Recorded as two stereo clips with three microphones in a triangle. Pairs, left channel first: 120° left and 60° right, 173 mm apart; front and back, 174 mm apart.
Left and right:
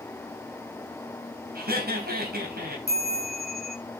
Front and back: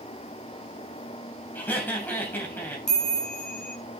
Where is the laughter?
80° right, 3.5 m.